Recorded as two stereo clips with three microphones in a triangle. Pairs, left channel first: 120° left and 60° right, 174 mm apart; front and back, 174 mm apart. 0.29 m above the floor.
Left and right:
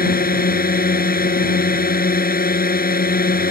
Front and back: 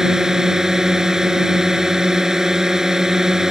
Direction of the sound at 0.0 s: 95° left.